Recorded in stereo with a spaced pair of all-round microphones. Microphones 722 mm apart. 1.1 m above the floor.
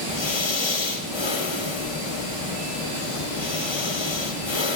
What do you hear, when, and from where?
0.1 s breathing: 40° left (ahead or behind), 0.7 m